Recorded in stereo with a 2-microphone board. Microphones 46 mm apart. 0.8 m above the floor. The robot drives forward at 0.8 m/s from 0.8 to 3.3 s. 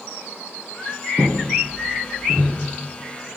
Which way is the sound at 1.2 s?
15° right (ahead or behind).